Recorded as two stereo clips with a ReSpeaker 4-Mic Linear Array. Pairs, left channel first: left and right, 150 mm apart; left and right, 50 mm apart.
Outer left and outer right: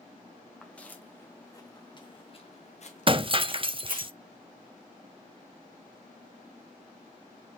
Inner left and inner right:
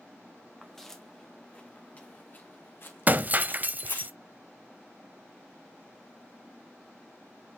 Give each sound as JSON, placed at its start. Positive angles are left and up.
{"t": 0.6, "sound": "footsteps", "side_deg": 5, "distance_m": 2.0}
{"t": 3.1, "sound": "breaking glass", "side_deg": -35, "distance_m": 0.7}